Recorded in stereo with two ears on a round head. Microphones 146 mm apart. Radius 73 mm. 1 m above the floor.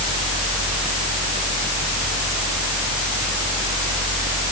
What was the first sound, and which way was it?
Only background noise.